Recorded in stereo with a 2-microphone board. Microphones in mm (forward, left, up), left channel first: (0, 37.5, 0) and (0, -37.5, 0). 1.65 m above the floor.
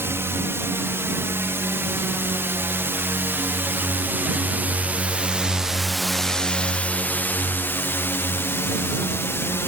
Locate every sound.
0.0 s a drone: 35° right (ahead or behind); by 9.7 s 35° left (ahead or behind)